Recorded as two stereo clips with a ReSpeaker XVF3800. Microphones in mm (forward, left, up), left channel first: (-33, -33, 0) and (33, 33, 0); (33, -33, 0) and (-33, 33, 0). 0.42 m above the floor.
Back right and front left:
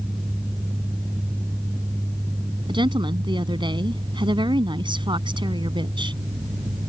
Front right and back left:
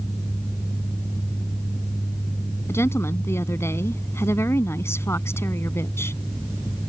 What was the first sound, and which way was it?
A woman speaking, 15° left.